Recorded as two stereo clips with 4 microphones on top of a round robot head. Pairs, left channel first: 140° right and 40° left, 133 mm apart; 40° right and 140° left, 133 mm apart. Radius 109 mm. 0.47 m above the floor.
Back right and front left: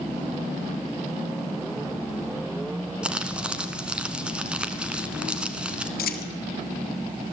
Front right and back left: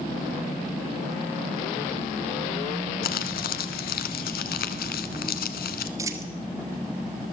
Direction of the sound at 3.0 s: 45° right.